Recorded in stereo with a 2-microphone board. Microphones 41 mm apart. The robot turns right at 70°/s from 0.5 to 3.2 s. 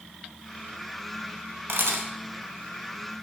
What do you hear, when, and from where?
1.7 s a camera shutter: 70° right (ahead or behind), 0.7 m; by 2.1 s 65° right (ahead or behind), 0.7 m